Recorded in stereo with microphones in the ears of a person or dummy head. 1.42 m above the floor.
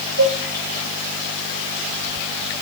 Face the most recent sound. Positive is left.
turn(degrees=-75)  # may be behind; listen again after turning